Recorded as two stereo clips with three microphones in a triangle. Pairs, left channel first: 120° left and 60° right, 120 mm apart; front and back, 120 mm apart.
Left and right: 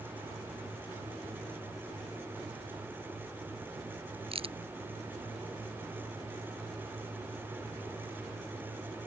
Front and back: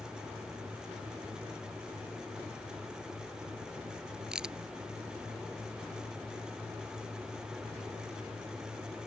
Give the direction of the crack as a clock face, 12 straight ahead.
3 o'clock.